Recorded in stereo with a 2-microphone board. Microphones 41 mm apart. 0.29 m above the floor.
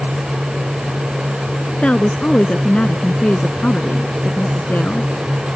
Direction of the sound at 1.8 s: 25° left (ahead or behind).